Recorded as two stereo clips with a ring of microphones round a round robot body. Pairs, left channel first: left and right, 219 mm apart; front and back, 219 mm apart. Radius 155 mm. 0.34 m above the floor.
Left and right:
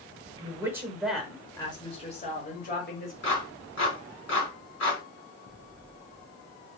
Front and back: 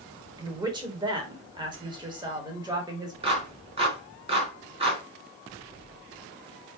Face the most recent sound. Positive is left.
turn(degrees=115)